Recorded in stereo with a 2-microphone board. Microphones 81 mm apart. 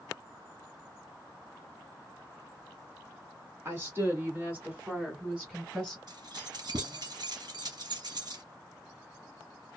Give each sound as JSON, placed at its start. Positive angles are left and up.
{"t": 3.6, "sound": "a woman speaking", "side_deg": -30, "distance_m": 1.7}
{"t": 6.1, "sound": "keys jangling", "side_deg": -60, "distance_m": 1.7}